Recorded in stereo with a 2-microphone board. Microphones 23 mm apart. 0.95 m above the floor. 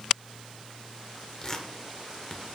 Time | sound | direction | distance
1.4 | tearing paper | 30° left (ahead or behind) | 1.1 m